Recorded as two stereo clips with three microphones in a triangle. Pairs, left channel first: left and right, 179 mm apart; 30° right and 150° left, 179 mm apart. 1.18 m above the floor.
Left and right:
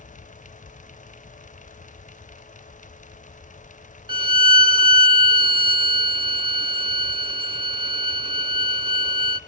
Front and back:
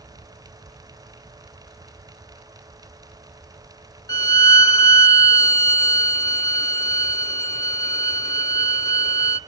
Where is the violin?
75° right, 0.8 m.